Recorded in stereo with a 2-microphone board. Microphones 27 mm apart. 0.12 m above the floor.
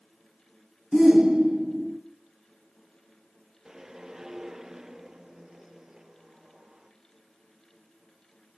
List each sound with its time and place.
0.9 s a shout: 25° right (ahead or behind), 1.3 m
3.6 s a whoosh: 15° right (ahead or behind), 1.8 m